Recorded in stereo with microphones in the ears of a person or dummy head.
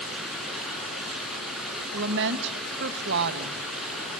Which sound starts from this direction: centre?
Running water, at 0.0 s.